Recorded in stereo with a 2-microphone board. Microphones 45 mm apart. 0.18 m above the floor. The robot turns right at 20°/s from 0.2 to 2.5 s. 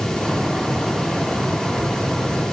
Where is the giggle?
I don't hear a giggle.